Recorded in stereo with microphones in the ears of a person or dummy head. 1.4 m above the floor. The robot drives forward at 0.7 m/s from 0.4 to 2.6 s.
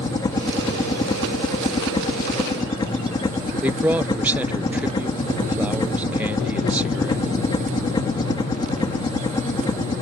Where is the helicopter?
20° left (ahead or behind).